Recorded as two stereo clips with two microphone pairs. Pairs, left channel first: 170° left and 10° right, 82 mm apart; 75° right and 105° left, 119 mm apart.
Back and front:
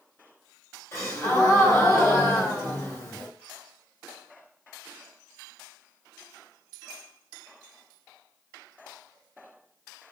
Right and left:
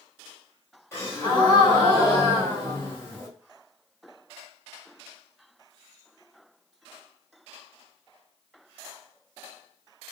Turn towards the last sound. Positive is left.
turn(degrees=-140)